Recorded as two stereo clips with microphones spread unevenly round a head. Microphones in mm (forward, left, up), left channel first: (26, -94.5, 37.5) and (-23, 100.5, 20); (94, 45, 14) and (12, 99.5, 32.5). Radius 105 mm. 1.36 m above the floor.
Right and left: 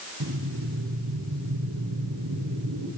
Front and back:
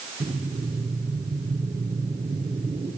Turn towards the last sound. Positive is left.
turn(degrees=100)